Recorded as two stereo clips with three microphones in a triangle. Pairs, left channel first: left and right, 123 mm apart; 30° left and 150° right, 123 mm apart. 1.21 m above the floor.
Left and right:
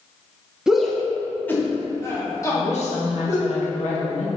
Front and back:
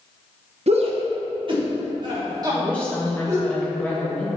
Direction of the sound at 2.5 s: 110° left.